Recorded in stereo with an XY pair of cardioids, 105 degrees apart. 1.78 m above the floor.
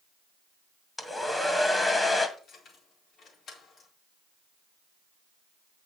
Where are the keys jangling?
70° left, 4 m.